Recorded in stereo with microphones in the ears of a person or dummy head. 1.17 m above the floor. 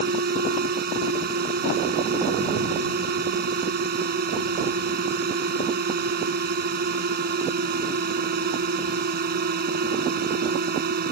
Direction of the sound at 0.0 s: 50° right (ahead or behind).